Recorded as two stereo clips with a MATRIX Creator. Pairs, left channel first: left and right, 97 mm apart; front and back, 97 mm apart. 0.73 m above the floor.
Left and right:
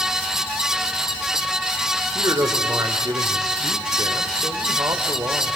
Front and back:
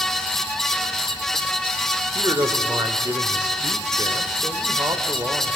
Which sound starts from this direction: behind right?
A man speaking, at 2.1 s.